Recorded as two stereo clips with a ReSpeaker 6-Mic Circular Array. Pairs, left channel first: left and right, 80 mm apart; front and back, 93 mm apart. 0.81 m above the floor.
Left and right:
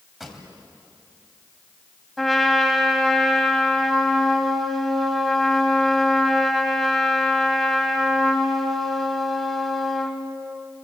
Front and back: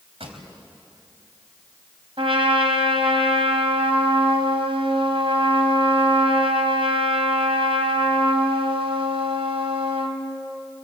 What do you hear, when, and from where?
0.2 s a pop: 175° right, 3.5 m
2.2 s a trumpet: straight behind, 2.5 m